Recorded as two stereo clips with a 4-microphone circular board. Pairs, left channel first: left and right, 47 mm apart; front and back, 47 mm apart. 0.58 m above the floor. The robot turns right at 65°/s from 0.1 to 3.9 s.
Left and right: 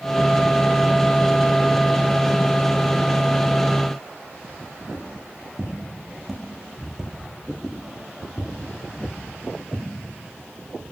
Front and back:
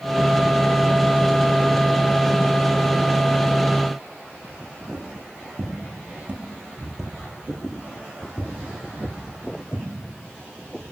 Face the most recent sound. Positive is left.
turn(degrees=-10)